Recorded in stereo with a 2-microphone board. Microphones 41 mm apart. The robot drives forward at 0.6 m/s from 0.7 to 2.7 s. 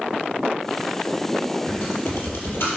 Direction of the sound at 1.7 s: 75° left (ahead or behind).